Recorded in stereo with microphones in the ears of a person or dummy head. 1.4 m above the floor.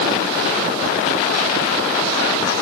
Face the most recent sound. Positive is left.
No sound to turn to.